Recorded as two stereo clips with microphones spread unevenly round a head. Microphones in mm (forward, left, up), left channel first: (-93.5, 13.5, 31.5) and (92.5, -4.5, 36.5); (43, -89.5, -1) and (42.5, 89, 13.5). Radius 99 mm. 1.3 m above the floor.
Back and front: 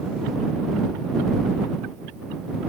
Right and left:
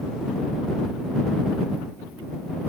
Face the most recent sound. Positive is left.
No sound to turn to.